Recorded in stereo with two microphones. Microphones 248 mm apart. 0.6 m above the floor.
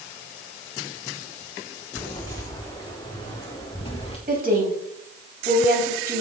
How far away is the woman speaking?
About 4 m.